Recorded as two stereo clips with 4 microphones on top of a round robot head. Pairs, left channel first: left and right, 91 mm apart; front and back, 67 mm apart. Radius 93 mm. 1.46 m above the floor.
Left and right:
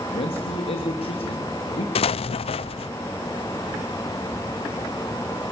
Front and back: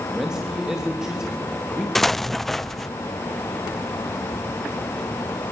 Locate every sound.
0.1 s a man speaking: 95° left, 3 m
1.9 s an explosion: 85° left, 0.6 m